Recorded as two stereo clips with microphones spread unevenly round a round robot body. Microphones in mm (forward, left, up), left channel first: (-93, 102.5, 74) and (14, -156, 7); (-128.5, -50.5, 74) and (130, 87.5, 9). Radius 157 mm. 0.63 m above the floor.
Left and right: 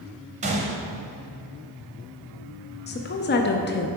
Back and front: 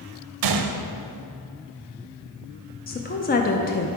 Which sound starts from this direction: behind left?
A woman speaking, at 2.9 s.